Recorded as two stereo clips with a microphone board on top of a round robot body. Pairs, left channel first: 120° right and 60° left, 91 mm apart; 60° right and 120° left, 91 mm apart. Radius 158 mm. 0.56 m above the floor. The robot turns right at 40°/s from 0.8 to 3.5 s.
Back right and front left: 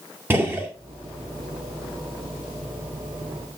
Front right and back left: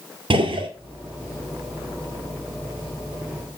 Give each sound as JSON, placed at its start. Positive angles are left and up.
{"t": 0.3, "sound": "a gunshot", "azimuth_deg": 130, "distance_m": 2.0}